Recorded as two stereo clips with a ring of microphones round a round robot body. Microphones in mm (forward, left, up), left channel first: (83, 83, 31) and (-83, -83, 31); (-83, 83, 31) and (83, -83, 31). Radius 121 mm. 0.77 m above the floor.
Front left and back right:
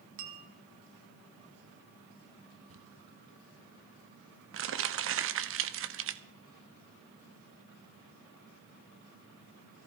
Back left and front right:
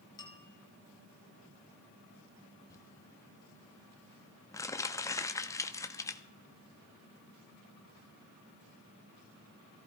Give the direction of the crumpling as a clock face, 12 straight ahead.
5 o'clock.